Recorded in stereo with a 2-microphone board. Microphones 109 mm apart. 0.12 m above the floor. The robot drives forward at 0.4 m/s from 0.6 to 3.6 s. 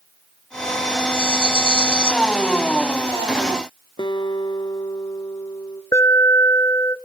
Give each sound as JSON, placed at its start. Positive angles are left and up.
{"t": 1.1, "sound": "a rattle", "side_deg": 50, "distance_m": 2.0}
{"t": 4.0, "sound": "a guitar", "side_deg": 40, "distance_m": 1.9}
{"t": 5.9, "sound": "an alarm", "side_deg": 30, "distance_m": 1.4}